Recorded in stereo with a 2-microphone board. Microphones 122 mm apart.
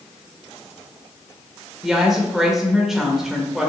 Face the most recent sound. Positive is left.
turn(degrees=0)  # may be behind; listen again after turning